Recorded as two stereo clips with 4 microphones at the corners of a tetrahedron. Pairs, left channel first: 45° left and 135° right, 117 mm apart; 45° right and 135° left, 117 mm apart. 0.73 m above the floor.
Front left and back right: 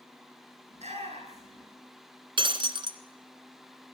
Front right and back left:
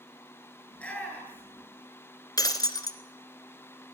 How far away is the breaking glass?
About 1.5 m.